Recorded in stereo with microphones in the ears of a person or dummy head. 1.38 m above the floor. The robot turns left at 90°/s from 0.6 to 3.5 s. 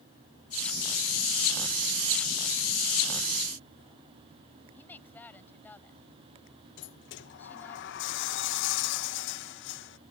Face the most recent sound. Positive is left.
turn(degrees=60)  # may be behind; listen again after turning